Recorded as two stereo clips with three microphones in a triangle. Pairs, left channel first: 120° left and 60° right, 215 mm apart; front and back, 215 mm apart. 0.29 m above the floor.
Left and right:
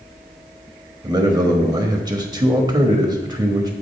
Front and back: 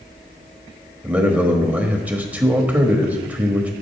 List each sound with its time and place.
1.0 s a man speaking: 105° right, 1.0 m